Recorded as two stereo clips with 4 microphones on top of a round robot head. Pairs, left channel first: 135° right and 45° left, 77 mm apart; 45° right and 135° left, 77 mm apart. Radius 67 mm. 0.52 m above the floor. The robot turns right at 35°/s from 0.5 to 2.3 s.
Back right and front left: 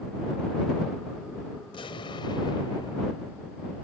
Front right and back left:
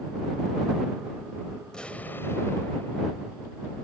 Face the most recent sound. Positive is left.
turn(degrees=-110)